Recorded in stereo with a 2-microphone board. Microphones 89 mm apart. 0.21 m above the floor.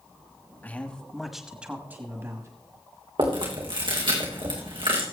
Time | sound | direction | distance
0.6 | a man speaking | 20° left (ahead or behind) | 1.4 m
3.2 | chewing | 70° right (ahead or behind) | 3.5 m